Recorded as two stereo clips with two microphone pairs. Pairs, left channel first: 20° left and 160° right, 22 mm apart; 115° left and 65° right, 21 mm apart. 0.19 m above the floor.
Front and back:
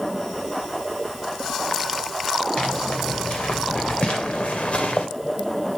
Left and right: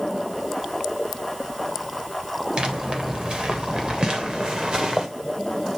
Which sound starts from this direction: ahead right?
Footsteps, at 2.6 s.